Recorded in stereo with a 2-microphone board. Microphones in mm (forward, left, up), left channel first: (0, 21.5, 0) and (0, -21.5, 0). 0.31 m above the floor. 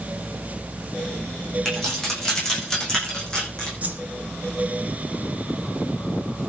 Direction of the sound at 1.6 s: 15° left (ahead or behind).